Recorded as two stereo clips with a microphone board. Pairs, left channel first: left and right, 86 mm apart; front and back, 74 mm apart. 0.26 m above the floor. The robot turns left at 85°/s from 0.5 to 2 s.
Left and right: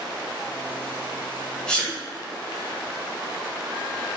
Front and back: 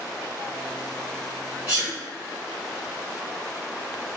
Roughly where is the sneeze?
Behind left.